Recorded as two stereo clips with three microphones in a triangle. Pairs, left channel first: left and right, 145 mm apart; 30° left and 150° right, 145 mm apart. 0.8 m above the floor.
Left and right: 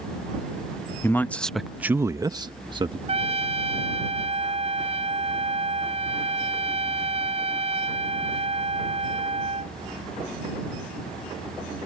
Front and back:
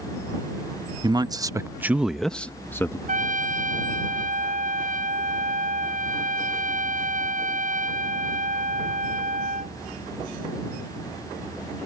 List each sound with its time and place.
1.0 s a man speaking: 160° left; by 3.0 s 40° right
3.1 s a trumpet: 135° right